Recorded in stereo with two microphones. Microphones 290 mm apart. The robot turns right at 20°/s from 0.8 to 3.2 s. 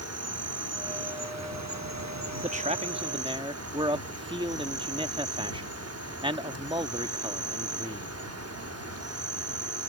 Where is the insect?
110° right; by 9.9 s 65° right.